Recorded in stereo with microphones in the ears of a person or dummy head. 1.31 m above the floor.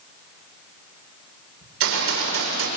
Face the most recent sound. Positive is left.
turn(degrees=-85)